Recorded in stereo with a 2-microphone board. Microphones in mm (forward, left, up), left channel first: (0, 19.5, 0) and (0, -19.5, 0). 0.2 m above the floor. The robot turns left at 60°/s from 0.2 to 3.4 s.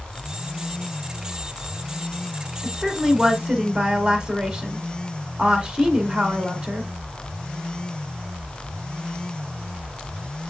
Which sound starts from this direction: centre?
A woman speaking, at 2.6 s.